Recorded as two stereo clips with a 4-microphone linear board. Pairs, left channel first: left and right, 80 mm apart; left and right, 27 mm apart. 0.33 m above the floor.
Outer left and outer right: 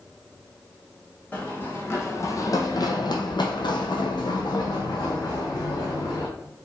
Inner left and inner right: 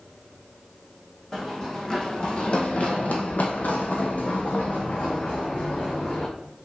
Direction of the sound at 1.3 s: 20° left (ahead or behind).